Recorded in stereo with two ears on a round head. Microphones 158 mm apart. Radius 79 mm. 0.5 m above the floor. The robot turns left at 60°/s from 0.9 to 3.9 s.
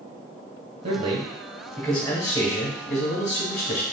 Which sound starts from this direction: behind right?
A man speaking, at 0.8 s.